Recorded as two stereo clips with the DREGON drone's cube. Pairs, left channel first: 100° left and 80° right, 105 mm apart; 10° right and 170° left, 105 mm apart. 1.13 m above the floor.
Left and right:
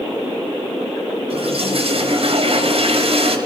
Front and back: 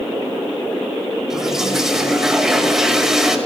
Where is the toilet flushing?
105° right, 6 m.